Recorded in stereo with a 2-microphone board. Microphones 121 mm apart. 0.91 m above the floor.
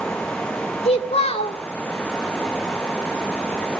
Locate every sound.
0.8 s a child speaking: 55° left (ahead or behind), 1.6 m